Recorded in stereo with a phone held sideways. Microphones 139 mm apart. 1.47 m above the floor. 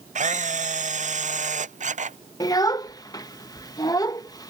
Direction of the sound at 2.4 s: 25° left (ahead or behind).